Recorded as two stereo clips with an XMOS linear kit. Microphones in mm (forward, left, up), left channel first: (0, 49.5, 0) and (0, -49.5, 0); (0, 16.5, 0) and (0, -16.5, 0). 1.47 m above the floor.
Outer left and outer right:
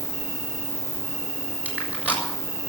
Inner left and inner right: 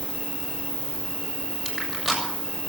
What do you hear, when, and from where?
0.0 s an insect: 20° right (ahead or behind), 3.5 m
1.6 s crushing: 15° right (ahead or behind), 6.5 m